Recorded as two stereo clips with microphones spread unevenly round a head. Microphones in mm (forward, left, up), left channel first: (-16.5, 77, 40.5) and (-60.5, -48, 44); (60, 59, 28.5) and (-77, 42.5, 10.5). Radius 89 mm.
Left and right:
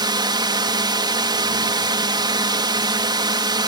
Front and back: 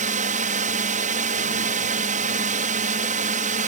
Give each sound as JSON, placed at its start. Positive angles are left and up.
{"t": 0.0, "sound": "a drone", "azimuth_deg": -160}